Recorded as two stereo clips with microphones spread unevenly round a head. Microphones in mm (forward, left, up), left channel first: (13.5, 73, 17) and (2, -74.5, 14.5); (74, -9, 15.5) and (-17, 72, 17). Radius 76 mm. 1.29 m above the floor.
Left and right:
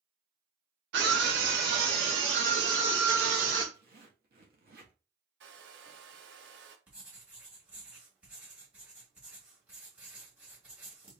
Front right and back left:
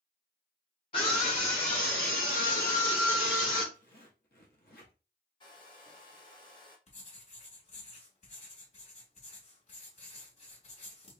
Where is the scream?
95° right, 0.9 m; by 3.6 s 70° right, 2.5 m.